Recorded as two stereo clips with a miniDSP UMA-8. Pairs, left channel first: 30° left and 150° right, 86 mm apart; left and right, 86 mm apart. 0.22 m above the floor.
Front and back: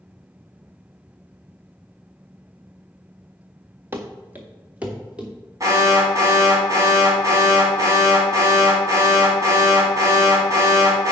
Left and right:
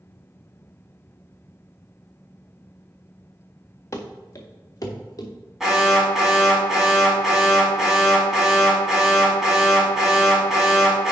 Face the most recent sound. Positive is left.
turn(degrees=-175)